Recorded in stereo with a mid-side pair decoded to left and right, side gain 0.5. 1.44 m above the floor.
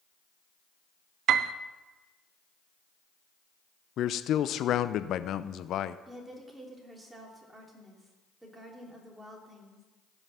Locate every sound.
1.3 s a piano: 70° right, 0.5 m
4.0 s a man speaking: 60° left, 0.6 m
6.1 s a woman speaking: 20° right, 3 m